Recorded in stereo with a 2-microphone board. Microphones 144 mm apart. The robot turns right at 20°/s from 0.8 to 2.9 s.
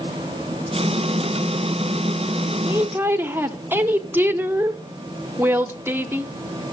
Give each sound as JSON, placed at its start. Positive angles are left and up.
{"t": 2.7, "sound": "a woman speaking", "side_deg": -15, "distance_m": 0.8}